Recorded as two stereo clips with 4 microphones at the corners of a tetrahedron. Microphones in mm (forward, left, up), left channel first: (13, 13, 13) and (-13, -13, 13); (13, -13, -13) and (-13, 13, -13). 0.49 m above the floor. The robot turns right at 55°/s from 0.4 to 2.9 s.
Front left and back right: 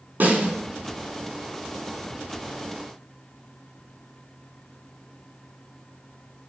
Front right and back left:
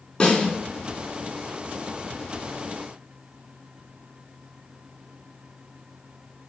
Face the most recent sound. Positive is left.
turn(degrees=30)